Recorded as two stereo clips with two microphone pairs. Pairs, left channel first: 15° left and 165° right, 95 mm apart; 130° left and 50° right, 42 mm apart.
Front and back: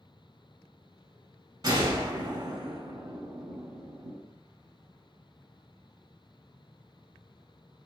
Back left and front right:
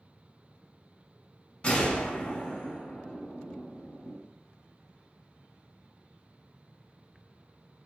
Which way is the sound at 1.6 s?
165° left.